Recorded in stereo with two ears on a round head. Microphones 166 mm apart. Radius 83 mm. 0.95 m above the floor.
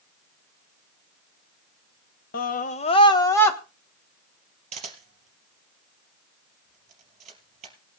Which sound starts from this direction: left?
A scream, at 2.3 s.